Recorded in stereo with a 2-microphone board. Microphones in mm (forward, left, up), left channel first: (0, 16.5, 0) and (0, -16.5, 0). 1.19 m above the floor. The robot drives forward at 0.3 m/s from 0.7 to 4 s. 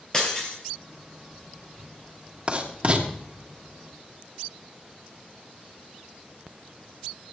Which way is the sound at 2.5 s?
35° right (ahead or behind).